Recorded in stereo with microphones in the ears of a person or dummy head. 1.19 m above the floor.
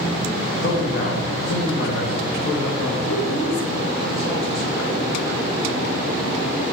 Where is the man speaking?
50° left (ahead or behind), 1.2 m.